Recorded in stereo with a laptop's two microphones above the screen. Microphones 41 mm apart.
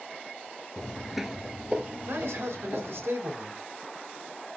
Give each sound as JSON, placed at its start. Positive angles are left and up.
{"t": 0.8, "sound": "footsteps", "side_deg": 15, "distance_m": 1.0}
{"t": 2.1, "sound": "a man speaking", "side_deg": -70, "distance_m": 5.5}